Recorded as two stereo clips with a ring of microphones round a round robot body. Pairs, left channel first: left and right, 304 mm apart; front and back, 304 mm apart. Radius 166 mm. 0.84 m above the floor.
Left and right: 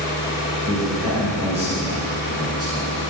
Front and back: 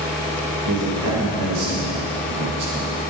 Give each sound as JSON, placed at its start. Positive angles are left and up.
{"t": 0.7, "sound": "a man speaking", "azimuth_deg": -155, "distance_m": 4.0}